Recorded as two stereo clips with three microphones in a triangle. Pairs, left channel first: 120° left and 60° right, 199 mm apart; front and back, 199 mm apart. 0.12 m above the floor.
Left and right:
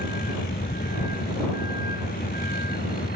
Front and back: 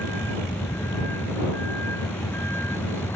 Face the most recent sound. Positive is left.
turn(degrees=80)